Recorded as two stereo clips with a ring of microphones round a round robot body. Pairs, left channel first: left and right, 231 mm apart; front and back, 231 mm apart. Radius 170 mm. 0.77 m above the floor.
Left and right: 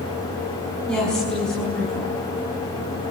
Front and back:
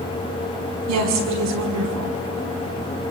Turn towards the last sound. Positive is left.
turn(degrees=180)